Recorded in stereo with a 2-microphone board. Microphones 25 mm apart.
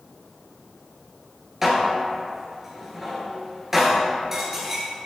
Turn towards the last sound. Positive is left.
turn(degrees=-15)  # may be behind; listen again after turning